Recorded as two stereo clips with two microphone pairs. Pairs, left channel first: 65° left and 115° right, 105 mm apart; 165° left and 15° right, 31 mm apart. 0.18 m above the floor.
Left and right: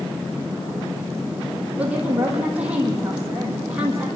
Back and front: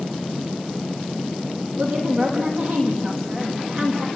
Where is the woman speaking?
40° right, 7 m.